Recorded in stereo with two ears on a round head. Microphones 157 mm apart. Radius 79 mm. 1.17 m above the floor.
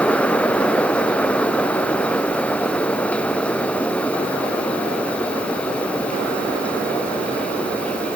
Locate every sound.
Only background noise.